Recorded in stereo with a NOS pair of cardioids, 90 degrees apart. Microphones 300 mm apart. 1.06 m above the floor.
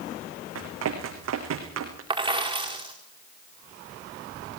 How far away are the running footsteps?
About 4.5 m.